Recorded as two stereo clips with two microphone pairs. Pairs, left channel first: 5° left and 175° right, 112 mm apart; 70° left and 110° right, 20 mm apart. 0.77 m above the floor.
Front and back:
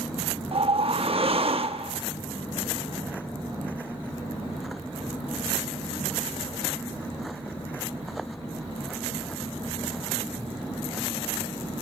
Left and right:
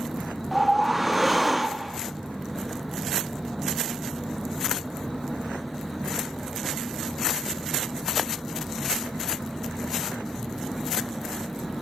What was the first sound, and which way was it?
A whoosh, 165° left.